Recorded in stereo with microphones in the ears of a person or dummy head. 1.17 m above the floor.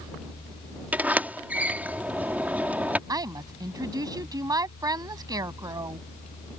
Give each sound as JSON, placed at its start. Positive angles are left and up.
{"t": 0.9, "sound": "a sliding door", "side_deg": 0}
{"t": 3.1, "sound": "a woman speaking", "side_deg": -25}